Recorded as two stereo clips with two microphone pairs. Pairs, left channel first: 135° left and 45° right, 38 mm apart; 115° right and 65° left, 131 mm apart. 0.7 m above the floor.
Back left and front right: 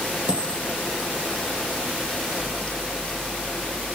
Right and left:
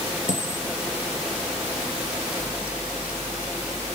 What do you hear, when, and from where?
0.3 s a dropped coin: 100° right, 4.5 m